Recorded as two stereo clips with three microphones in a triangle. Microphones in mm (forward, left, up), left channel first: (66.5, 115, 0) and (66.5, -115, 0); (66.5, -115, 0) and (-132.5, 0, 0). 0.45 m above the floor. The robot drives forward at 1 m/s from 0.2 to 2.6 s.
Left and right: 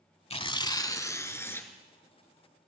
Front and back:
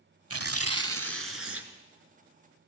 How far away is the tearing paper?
About 0.8 m.